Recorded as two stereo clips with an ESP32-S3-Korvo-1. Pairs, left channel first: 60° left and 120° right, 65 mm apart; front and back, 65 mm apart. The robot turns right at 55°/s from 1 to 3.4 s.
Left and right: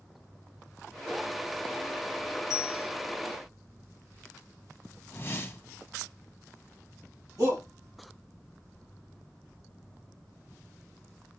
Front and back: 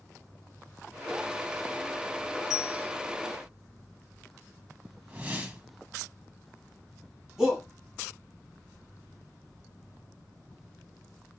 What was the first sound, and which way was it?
A bell, 100° left.